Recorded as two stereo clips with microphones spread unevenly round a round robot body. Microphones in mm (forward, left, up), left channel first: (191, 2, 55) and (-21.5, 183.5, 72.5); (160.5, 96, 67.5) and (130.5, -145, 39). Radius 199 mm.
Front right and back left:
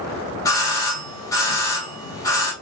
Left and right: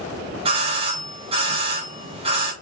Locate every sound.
0.5 s a doorbell: 100° right, 1.3 m